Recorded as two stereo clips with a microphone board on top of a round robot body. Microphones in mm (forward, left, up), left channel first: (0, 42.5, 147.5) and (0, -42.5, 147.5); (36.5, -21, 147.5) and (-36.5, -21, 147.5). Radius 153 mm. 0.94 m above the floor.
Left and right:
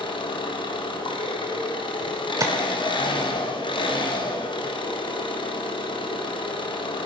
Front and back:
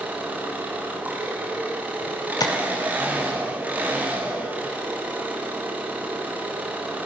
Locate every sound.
0.0 s an engine running: 110° left, 3 m
2.4 s tapping: 35° right, 0.9 m